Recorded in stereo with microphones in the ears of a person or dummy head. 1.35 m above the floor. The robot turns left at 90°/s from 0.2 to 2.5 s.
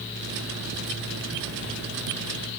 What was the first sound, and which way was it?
Only background noise.